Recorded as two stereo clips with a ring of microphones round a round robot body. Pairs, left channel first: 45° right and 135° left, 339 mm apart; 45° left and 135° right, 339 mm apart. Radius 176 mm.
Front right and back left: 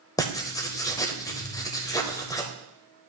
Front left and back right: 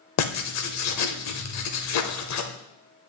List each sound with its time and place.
0.2 s writing: 30° left, 0.9 m